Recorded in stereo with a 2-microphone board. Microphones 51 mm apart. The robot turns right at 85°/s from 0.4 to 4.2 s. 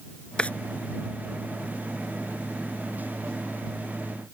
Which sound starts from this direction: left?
A drawer, at 0.4 s.